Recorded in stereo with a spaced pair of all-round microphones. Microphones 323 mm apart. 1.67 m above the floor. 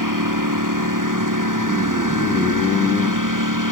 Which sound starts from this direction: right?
A lawn mower, at 0.0 s.